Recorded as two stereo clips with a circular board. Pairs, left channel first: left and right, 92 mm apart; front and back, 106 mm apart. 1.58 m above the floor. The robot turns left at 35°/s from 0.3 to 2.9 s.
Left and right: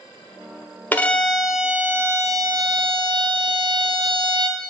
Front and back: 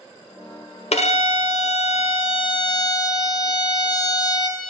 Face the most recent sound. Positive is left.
turn(degrees=-50)